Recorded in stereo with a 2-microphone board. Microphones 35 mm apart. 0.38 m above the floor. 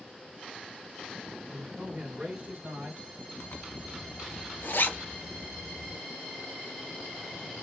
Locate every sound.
1.5 s a man speaking: 10° right (ahead or behind), 1.1 m; by 3.0 s 45° right (ahead or behind), 1.5 m
3.4 s a zipper: 80° left, 0.7 m